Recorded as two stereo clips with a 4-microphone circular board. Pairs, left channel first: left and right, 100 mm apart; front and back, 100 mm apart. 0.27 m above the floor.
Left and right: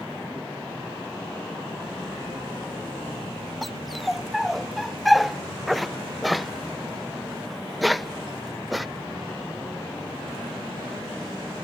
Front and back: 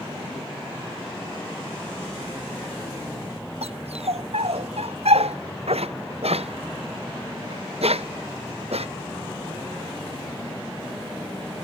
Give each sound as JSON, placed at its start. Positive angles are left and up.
{"t": 3.6, "sound": "a dog barking", "azimuth_deg": 180}